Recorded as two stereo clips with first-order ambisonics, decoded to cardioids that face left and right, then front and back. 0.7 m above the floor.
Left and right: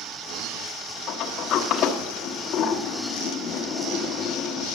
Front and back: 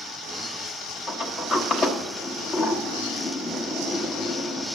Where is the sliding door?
55° left, 1.1 m.